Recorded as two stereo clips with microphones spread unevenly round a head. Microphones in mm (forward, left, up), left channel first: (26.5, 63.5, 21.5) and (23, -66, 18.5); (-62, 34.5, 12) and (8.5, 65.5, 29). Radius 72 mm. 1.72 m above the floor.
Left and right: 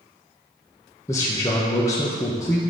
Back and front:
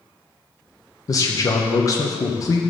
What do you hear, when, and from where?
1.1 s a man speaking: 160° left, 1.1 m